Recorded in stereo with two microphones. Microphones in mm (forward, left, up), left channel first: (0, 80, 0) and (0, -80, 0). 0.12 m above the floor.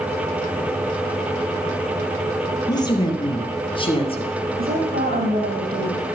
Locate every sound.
2.7 s a woman speaking: 25° left (ahead or behind), 2.5 m; by 4.3 s 35° left (ahead or behind), 2.5 m
4.6 s a woman speaking: 70° right (ahead or behind), 4.5 m